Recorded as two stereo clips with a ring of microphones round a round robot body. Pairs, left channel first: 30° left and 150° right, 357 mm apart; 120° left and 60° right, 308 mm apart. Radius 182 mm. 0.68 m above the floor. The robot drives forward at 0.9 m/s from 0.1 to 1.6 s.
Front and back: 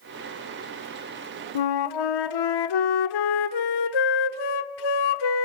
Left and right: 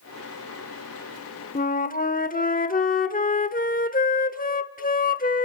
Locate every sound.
1.6 s a flute: 55° left, 1.1 m